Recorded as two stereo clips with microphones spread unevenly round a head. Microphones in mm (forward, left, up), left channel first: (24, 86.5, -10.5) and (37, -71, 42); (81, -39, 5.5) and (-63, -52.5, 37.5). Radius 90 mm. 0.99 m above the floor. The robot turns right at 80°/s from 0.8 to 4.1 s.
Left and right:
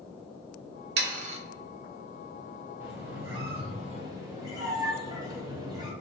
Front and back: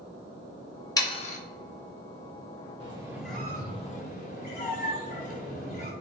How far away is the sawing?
About 0.6 m.